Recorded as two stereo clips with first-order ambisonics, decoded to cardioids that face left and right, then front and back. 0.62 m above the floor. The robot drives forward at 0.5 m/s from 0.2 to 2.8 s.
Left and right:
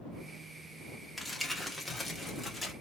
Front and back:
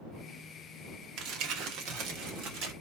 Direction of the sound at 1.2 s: Straight behind.